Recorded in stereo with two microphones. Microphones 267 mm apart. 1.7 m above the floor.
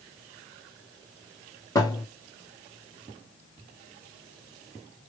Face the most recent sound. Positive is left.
turn(degrees=10)  # may be behind; listen again after turning